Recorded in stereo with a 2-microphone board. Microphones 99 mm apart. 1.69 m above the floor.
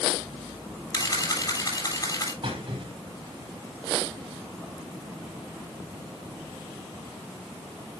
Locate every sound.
0.9 s a camera shutter: 35° left (ahead or behind), 6.5 m
2.4 s a squeak: 60° right (ahead or behind), 4 m